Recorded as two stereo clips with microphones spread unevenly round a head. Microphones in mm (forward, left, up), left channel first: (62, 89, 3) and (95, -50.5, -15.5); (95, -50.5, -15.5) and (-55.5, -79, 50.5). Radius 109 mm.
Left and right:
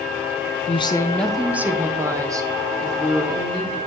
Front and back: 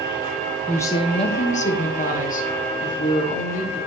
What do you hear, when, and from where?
0.7 s a woman speaking: 65° left, 0.5 m; by 3.8 s 20° right, 2.5 m